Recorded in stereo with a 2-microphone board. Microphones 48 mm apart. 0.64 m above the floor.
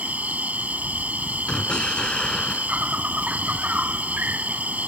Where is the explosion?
20° left (ahead or behind).